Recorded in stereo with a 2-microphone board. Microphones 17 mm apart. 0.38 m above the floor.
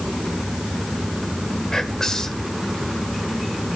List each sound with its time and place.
1.7 s whispering: 30° left (ahead or behind), 1.0 m